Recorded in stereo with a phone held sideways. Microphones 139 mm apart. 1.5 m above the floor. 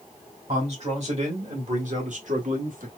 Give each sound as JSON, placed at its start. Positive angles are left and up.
{"t": 0.5, "sound": "a man speaking", "side_deg": -50, "distance_m": 2.5}